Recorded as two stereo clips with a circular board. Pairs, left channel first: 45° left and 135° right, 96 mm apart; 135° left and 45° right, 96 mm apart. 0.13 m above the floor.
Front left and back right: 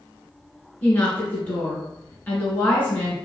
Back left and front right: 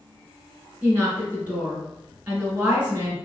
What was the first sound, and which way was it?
A woman speaking, straight ahead.